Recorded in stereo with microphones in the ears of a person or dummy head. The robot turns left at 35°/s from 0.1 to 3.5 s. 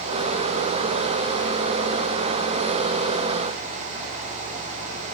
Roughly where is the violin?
I don't hear a violin.